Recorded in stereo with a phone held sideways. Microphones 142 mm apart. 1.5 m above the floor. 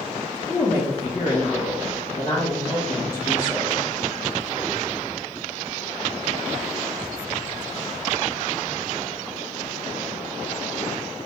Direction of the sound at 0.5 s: 75° left (ahead or behind).